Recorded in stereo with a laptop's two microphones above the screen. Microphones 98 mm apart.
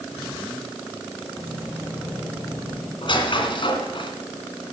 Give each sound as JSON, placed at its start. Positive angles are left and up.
{"t": 1.4, "sound": "keys jangling", "side_deg": -20, "distance_m": 3.5}
{"t": 3.0, "sound": "a squeak", "side_deg": 60, "distance_m": 2.0}